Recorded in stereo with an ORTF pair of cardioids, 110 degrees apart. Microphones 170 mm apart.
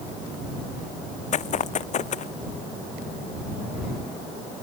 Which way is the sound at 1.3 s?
45° left.